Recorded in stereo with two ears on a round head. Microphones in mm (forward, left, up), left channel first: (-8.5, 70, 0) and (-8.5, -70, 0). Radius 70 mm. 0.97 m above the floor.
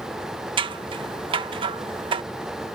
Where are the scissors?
35° right (ahead or behind).